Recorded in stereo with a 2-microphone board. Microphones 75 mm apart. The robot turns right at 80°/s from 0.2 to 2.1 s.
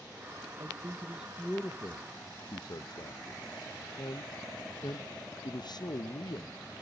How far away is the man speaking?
About 0.8 m.